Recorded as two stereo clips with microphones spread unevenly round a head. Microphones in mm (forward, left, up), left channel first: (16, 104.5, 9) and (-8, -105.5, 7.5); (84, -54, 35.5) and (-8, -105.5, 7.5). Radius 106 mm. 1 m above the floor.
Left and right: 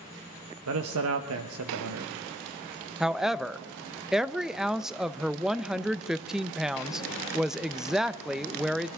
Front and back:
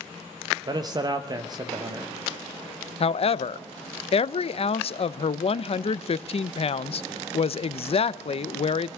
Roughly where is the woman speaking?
Ahead.